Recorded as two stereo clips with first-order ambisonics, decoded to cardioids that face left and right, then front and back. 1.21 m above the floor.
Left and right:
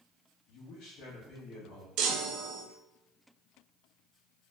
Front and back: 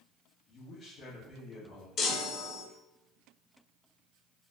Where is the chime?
55° right, 0.5 m.